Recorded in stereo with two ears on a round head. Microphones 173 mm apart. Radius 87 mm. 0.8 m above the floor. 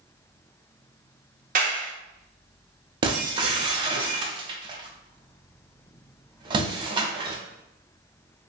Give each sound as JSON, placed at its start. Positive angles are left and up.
{"t": 1.6, "sound": "a clap", "side_deg": -45, "distance_m": 0.7}
{"t": 3.0, "sound": "breaking glass", "side_deg": -25, "distance_m": 0.6}